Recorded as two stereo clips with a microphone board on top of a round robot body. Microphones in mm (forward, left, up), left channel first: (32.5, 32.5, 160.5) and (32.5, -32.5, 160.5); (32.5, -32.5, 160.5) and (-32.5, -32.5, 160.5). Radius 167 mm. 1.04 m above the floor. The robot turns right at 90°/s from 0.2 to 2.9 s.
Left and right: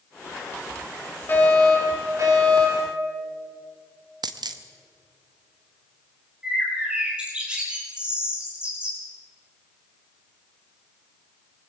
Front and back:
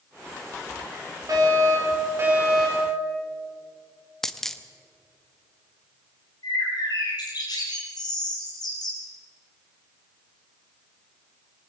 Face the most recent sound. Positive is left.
turn(degrees=-15)